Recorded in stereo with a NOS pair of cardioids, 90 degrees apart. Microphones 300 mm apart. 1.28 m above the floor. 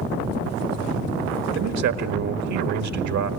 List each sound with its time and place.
1.6 s a man speaking: 65° right, 1.9 m